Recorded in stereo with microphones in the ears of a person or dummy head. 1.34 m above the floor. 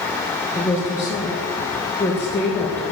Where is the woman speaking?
15° left (ahead or behind), 1.0 m.